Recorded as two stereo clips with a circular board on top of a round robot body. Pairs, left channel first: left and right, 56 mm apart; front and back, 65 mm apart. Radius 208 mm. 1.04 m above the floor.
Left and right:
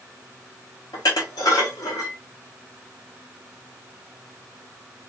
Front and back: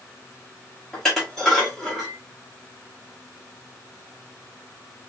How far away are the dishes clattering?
About 1.5 m.